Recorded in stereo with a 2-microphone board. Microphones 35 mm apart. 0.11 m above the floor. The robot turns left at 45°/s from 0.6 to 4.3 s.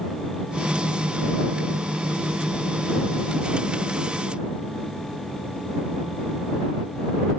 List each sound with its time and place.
Only background noise.